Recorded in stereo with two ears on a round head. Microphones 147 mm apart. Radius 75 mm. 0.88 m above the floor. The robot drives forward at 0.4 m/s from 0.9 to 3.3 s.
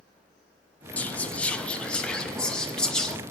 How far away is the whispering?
About 0.8 m.